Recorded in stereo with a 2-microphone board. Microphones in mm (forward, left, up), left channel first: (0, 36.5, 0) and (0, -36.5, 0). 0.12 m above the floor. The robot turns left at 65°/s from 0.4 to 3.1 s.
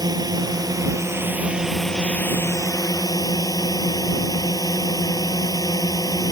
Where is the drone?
90° right; by 6.3 s 95° left.